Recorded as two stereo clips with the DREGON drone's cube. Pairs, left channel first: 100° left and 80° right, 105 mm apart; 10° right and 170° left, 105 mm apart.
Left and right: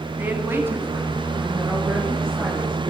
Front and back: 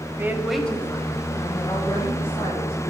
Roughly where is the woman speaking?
Behind right.